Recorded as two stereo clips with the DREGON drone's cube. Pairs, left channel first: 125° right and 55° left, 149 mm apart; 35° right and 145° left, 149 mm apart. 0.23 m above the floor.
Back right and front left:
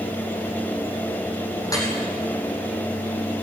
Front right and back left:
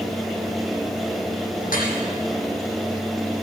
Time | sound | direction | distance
1.6 | dripping | 55° right | 5 m